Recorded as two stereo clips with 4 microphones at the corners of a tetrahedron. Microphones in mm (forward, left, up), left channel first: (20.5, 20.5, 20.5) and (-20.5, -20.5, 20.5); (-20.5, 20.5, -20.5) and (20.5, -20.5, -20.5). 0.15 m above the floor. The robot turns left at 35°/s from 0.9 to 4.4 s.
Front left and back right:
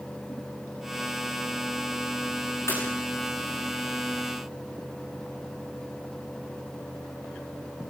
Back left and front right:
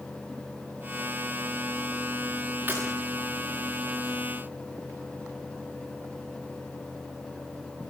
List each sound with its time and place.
2.7 s breaking glass: 10° left, 8.5 m; by 2.8 s 5° left, 8.5 m